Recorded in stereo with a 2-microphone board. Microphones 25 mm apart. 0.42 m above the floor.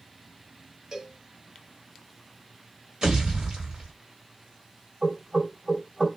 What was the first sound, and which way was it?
A cowbell, 30° right (ahead or behind).